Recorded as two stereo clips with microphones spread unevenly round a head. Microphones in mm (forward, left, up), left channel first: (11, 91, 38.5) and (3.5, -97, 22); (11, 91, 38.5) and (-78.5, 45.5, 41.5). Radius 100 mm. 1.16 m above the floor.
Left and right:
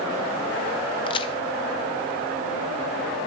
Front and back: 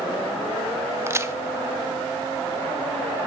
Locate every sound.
1.1 s a crack: 150° left, 0.8 m